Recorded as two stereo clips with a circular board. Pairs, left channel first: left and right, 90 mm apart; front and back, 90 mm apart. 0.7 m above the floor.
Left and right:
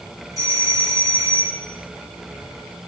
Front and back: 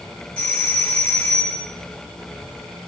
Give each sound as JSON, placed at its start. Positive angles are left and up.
{"t": 0.4, "sound": "a doorbell", "azimuth_deg": -70, "distance_m": 2.0}